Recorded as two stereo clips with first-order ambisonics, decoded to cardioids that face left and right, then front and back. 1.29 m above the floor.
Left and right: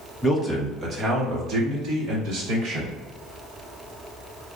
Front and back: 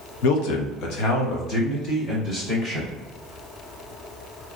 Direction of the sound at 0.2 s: 10° left.